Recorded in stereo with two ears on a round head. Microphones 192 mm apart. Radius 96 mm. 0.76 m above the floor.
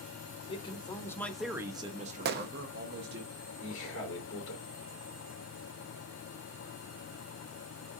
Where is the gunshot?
50° right (ahead or behind), 0.5 m.